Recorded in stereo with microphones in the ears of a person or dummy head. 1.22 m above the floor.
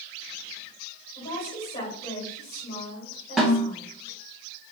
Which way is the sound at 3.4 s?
Centre (ahead or behind).